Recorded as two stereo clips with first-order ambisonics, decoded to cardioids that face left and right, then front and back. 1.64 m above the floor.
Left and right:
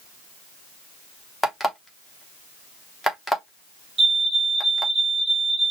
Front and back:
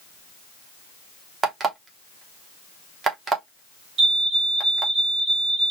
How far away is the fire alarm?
About 1.5 m.